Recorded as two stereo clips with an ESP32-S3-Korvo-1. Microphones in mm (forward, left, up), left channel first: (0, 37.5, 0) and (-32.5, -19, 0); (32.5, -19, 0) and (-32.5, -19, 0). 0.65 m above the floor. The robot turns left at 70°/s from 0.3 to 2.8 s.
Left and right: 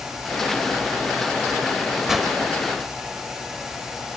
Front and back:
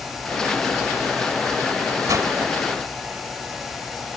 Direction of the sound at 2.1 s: 160° left.